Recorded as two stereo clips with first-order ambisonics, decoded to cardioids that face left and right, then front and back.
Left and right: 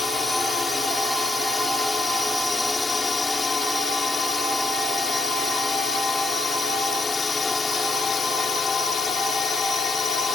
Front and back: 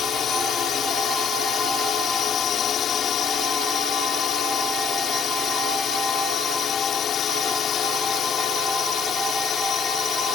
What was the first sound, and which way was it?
A drone, 10° left.